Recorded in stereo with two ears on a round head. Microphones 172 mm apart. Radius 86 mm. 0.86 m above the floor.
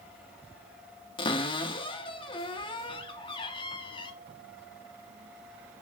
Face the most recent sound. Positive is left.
turn(degrees=30)  # may be behind; listen again after turning